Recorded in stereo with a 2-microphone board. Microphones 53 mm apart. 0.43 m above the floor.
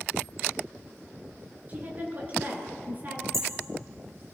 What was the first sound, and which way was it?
A woman speaking, 30° right (ahead or behind).